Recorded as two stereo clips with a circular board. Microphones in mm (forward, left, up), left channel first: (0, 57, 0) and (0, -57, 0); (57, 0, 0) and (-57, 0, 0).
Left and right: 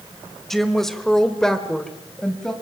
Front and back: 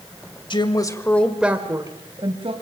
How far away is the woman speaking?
About 1.8 m.